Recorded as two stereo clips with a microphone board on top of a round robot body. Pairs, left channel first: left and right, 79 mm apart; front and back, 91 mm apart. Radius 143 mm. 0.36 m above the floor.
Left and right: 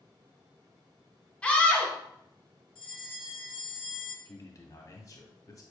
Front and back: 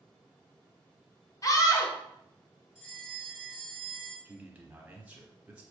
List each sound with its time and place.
1.4 s a scream: 20° left, 1.4 m
2.8 s a bell: 75° left, 1.7 m
4.2 s a man speaking: 110° left, 1.2 m